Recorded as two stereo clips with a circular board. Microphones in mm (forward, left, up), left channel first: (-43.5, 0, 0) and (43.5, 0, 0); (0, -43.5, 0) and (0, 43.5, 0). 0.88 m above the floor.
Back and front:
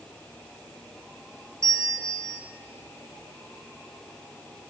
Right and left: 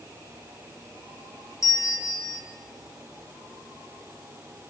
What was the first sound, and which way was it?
A bell, 45° right.